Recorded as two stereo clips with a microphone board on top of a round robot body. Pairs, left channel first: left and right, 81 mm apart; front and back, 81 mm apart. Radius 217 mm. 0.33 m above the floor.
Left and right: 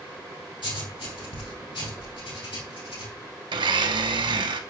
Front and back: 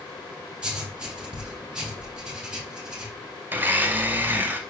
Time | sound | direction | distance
0.6 | writing | 100° left | 3 m
3.5 | a blender | 110° right | 0.6 m